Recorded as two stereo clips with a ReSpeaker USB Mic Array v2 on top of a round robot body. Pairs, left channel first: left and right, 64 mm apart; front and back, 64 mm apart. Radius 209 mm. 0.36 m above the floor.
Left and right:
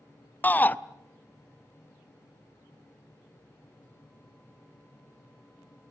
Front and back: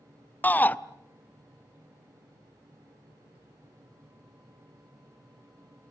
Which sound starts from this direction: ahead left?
A shout, at 0.4 s.